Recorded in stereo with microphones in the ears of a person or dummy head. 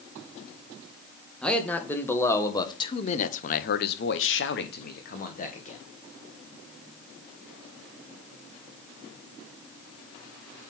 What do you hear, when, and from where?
1.4 s a man speaking: 10° left (ahead or behind), 1.5 m; by 5.8 s 35° left (ahead or behind), 1.4 m